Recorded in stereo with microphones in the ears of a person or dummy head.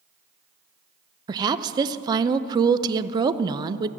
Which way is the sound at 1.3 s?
25° right (ahead or behind).